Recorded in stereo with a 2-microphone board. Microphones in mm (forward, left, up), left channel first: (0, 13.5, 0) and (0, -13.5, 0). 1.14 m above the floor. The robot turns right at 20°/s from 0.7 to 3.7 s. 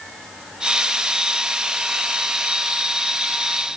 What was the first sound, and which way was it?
Only background noise.